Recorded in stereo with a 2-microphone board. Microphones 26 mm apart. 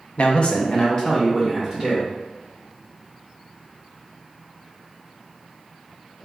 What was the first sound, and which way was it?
A man speaking, 50° left (ahead or behind).